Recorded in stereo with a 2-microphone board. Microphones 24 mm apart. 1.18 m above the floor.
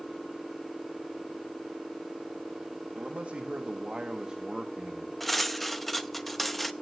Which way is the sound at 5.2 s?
5° left (ahead or behind).